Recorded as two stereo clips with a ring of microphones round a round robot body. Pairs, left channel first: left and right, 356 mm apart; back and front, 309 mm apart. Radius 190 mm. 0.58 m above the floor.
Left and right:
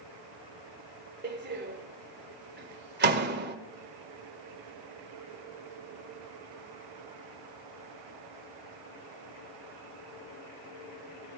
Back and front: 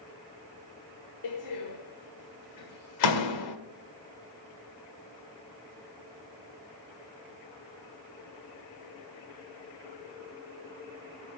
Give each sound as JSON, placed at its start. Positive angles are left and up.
{"t": 1.2, "sound": "a door slam", "azimuth_deg": -150, "distance_m": 1.7}